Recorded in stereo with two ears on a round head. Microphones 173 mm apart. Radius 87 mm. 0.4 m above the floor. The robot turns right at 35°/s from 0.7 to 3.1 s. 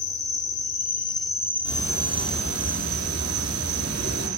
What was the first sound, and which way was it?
An insect, 140° left.